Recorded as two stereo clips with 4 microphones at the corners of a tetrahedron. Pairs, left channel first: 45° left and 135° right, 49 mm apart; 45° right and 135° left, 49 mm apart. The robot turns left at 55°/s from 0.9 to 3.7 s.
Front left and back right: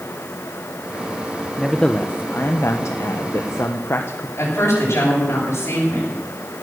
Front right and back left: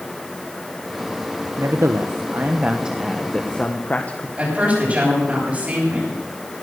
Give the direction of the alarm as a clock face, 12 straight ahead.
I don't hear an alarm.